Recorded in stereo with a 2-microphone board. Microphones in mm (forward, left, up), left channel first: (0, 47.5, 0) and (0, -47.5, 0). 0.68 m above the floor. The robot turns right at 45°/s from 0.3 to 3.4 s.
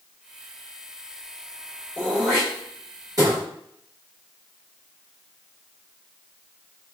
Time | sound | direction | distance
2.0 | throat clearing | 15° left (ahead or behind) | 1.9 m